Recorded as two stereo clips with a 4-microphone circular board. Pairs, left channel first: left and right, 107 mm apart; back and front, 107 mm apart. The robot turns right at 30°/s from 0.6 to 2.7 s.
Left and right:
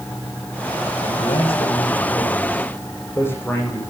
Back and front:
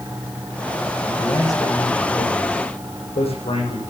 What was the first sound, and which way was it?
A man speaking, 110° left.